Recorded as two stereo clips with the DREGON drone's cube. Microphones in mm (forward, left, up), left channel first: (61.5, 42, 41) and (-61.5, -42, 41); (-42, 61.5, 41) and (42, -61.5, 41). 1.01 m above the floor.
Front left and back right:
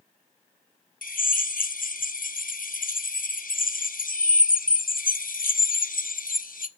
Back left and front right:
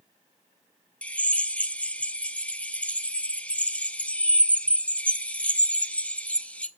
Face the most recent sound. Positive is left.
turn(degrees=45)